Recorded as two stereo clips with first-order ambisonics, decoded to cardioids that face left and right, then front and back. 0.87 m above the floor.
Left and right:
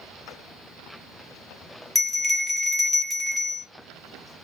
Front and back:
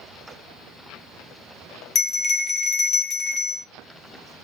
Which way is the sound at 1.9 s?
5° left.